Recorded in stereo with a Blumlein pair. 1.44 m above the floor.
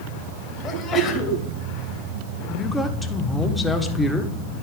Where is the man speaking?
5° left, 1.2 m.